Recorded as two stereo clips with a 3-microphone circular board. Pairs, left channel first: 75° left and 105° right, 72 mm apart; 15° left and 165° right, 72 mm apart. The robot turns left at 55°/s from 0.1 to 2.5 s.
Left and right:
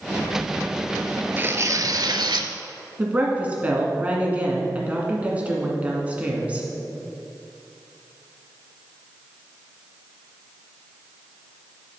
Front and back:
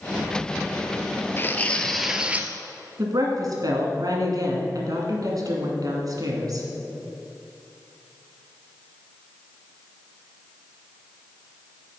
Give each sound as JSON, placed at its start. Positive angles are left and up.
{"t": 1.4, "sound": "tearing paper", "azimuth_deg": -40, "distance_m": 0.6}
{"t": 3.0, "sound": "a woman speaking", "azimuth_deg": -170, "distance_m": 1.8}